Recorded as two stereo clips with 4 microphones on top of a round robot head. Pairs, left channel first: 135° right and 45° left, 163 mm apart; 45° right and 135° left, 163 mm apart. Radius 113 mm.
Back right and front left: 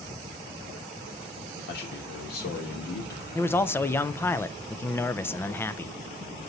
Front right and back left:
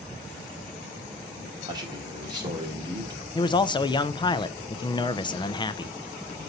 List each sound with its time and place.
1.7 s a man speaking: 160° right, 2.5 m
3.4 s a man speaking: 70° right, 0.5 m